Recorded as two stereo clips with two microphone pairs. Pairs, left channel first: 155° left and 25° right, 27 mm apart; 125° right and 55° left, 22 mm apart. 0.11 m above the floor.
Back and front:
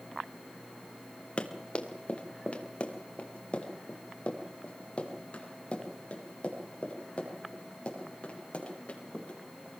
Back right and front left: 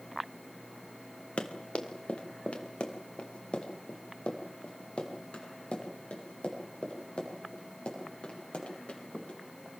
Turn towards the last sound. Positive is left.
turn(degrees=-155)